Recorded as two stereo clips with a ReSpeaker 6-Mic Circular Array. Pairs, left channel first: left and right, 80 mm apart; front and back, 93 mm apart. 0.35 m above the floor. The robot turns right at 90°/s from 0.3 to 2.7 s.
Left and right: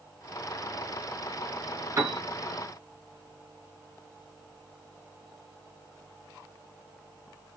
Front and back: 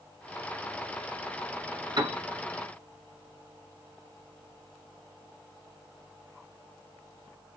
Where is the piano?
145° right, 2.5 m; by 2.2 s 120° right, 2.5 m.